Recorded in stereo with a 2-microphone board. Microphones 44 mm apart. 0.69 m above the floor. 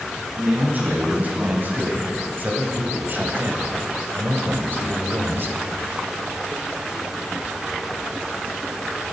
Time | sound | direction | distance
0.4 | a man speaking | 40° right (ahead or behind) | 4.5 m